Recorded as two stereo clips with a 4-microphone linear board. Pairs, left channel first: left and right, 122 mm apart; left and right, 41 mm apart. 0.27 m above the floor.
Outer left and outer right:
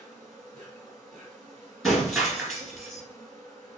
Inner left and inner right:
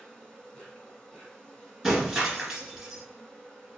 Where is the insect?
5° left (ahead or behind), 1.9 m.